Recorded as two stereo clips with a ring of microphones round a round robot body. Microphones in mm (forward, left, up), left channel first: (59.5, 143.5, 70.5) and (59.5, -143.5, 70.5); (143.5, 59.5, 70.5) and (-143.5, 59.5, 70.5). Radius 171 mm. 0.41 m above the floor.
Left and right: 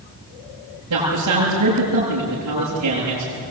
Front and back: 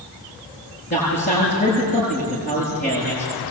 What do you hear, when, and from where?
0.9 s a man speaking: 65° right, 8.5 m